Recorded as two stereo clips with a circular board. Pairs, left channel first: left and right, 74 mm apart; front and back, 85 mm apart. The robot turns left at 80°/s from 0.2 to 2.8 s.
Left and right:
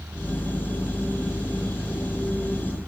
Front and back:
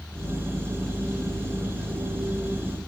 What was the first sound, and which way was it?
Only background noise.